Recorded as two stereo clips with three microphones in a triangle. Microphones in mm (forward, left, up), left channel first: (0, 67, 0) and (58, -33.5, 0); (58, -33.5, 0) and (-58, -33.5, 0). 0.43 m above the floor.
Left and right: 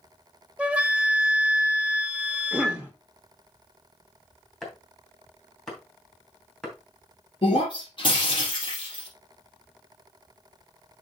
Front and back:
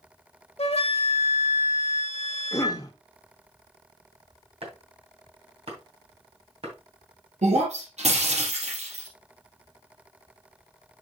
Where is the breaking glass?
165° left, 4 m.